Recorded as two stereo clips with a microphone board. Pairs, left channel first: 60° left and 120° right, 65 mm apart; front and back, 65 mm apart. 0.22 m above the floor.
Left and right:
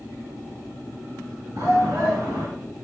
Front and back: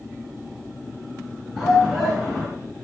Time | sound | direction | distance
1.6 | a shout | 95° right | 2.5 m